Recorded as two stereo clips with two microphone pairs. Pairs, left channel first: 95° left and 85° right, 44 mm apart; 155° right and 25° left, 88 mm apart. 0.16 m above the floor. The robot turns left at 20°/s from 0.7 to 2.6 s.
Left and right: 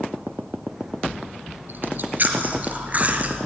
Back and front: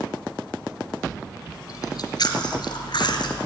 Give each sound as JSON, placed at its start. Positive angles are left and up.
{"t": 1.7, "sound": "chewing", "azimuth_deg": -115, "distance_m": 1.7}